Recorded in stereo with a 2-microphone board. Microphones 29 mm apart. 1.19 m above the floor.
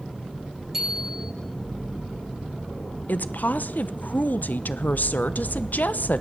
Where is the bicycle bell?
15° right (ahead or behind), 7.5 m.